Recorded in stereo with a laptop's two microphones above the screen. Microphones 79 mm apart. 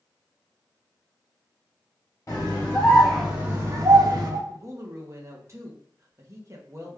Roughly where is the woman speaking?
Right.